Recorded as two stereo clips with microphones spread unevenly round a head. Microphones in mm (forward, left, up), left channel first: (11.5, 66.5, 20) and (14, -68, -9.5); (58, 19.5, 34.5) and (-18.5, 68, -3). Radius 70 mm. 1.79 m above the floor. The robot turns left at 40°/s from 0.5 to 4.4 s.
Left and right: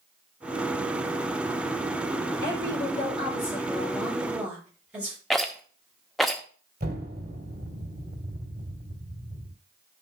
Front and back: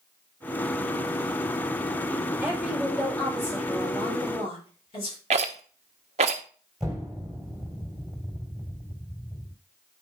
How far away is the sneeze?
I don't hear a sneeze.